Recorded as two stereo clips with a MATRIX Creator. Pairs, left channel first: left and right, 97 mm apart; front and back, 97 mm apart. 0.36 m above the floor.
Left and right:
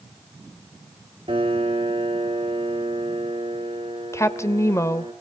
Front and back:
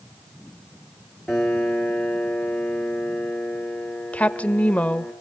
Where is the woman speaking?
65° left, 1.0 m.